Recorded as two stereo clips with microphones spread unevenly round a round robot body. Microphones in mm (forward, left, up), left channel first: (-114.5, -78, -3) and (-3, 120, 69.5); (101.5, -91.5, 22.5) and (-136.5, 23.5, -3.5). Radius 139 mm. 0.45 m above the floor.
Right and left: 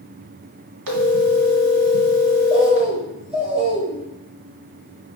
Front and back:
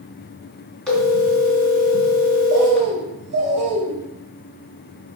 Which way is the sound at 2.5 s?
130° left.